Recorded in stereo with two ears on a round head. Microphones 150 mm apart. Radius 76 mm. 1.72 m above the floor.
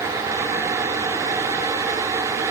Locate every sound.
Only background noise.